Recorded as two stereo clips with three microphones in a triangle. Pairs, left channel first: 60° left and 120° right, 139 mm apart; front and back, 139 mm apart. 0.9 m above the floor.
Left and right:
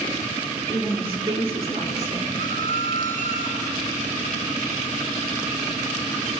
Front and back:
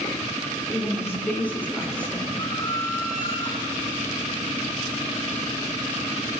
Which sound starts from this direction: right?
A woman speaking, at 0.7 s.